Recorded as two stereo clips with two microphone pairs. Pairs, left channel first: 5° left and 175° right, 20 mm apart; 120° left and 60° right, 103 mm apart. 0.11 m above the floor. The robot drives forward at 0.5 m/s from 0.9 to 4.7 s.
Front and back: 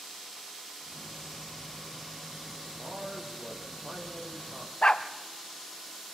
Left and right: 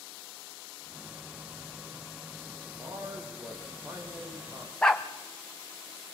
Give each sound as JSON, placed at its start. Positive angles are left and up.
{"t": 2.7, "sound": "a man speaking", "azimuth_deg": -120, "distance_m": 6.0}
{"t": 4.8, "sound": "a dog barking", "azimuth_deg": 35, "distance_m": 1.5}